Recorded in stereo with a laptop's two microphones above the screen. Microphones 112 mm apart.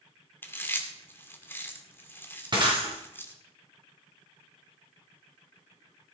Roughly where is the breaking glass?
Right.